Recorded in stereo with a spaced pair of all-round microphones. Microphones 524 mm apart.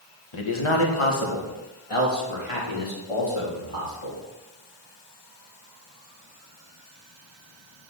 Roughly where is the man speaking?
Left.